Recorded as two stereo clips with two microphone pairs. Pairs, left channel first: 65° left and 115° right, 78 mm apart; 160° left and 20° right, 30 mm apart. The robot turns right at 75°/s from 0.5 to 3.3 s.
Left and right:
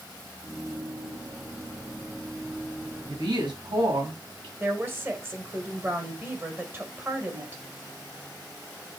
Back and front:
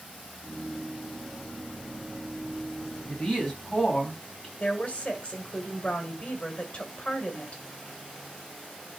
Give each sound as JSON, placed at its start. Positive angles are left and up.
{"t": 3.1, "sound": "a woman speaking", "azimuth_deg": -145, "distance_m": 3.0}
{"t": 4.6, "sound": "a woman speaking", "azimuth_deg": -170, "distance_m": 1.8}